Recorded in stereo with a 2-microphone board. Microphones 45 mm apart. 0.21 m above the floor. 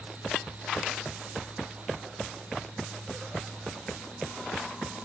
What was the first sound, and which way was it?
Only background noise.